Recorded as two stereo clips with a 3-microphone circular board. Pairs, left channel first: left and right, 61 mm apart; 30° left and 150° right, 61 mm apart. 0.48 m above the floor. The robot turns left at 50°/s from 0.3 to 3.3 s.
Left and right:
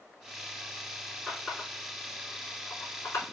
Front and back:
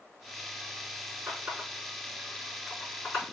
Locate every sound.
1.3 s a running tap: 170° left, 3.5 m; by 3.2 s 70° left, 3.5 m